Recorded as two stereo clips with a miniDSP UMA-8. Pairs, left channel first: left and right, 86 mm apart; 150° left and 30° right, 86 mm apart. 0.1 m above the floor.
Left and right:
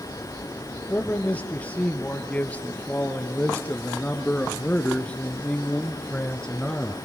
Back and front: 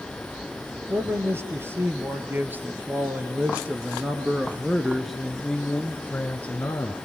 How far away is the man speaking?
About 3 m.